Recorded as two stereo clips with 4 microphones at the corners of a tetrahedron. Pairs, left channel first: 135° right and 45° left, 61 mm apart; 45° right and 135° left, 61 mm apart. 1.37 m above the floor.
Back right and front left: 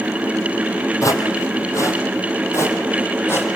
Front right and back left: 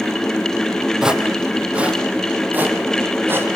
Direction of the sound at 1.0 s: 145° right.